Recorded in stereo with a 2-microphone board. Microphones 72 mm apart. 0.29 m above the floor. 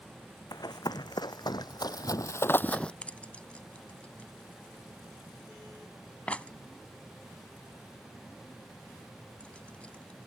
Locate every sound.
0.5 s running footsteps: 65° left (ahead or behind); by 2.9 s 15° left (ahead or behind)
3.0 s keys jangling: 20° left (ahead or behind)